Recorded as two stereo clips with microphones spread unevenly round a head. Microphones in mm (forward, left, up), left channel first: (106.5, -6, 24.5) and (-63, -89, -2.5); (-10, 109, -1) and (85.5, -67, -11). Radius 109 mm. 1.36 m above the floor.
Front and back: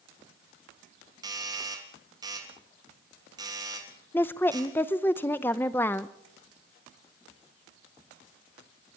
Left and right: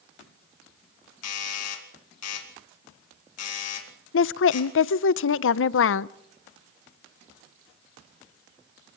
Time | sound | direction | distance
1.2 | a doorbell | 135° left | 2.5 m
4.1 | a woman speaking | 105° left | 0.6 m